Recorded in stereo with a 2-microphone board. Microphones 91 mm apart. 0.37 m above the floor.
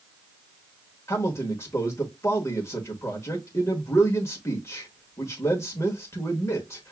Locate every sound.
1.1 s a man speaking: 30° left (ahead or behind), 1.0 m